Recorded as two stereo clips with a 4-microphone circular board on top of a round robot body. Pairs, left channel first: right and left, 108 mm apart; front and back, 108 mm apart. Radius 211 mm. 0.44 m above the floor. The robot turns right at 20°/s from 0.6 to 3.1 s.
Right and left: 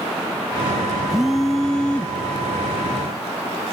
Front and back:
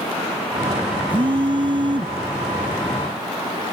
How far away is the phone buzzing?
About 0.6 m.